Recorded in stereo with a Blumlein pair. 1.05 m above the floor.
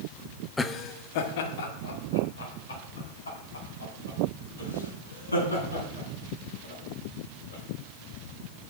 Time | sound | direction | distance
0.6 | laughter | 5° left | 0.8 m